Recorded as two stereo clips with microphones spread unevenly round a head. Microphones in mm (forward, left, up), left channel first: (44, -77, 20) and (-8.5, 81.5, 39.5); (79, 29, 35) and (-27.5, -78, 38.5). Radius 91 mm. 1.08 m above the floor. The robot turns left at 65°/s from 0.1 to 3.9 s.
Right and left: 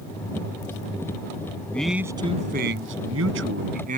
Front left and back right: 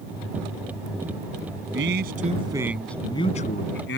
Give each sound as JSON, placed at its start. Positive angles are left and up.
{"t": 1.7, "sound": "a man speaking", "azimuth_deg": -155}